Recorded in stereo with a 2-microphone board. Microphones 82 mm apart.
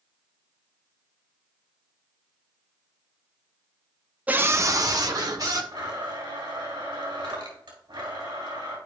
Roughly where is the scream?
Centre.